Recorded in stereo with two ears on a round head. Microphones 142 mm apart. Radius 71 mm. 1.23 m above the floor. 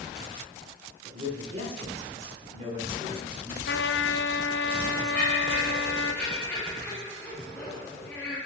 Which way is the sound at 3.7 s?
75° left (ahead or behind).